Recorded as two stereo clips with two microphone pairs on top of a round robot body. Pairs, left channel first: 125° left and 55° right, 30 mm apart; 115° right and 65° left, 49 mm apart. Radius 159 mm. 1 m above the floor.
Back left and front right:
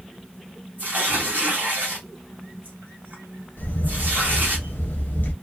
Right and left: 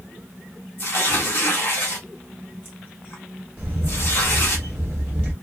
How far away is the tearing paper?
About 0.6 m.